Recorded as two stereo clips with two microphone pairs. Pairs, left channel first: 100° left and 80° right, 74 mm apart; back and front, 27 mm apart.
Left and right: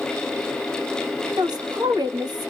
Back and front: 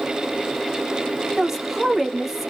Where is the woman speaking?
80° right, 1.5 m.